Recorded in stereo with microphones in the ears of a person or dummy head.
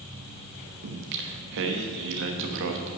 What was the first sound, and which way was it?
Singing, 65° right (ahead or behind).